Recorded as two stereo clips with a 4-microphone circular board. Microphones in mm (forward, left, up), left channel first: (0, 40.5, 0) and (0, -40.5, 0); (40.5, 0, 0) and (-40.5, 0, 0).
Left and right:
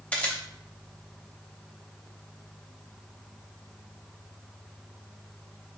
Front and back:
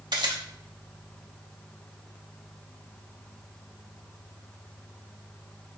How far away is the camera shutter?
About 0.5 m.